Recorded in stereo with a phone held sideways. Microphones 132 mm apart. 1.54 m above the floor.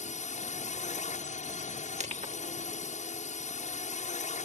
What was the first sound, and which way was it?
A drone, 75° left (ahead or behind).